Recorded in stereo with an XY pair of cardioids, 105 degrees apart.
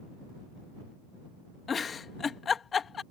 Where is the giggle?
40° left.